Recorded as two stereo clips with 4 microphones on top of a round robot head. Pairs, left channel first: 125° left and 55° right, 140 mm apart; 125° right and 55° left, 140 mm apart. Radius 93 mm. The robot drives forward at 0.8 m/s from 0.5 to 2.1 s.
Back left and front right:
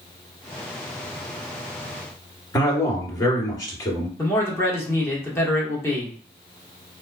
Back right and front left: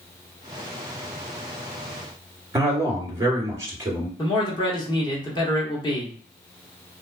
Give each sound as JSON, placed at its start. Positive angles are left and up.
{"t": 2.5, "sound": "a man speaking", "azimuth_deg": 100, "distance_m": 1.5}
{"t": 4.2, "sound": "a man speaking", "azimuth_deg": -170, "distance_m": 1.2}